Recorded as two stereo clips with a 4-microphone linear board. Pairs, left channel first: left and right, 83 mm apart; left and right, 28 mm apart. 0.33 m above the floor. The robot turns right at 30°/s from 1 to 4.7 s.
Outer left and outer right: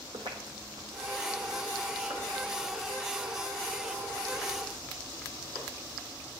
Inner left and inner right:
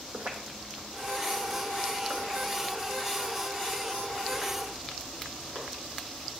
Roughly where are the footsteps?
Right.